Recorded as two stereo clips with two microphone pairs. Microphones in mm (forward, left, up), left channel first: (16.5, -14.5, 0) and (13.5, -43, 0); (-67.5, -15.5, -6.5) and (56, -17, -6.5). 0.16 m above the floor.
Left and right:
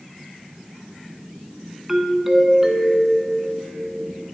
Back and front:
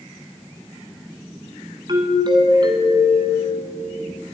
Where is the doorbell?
25° right, 1.7 m.